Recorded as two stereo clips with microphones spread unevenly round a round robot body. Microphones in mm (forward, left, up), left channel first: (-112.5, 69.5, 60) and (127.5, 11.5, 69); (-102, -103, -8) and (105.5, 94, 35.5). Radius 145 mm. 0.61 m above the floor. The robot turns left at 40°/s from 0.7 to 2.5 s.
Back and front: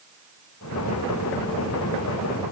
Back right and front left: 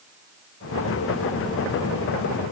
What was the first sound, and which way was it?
Only background noise.